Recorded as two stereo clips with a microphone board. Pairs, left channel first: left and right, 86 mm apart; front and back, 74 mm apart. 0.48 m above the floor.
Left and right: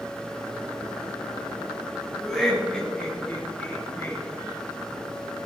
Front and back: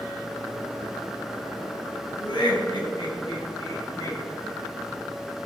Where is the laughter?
5° left, 3.5 m; by 4.2 s 30° left, 3 m.